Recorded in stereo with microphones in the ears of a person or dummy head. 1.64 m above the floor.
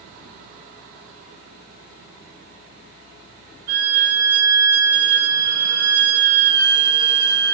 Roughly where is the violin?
Right.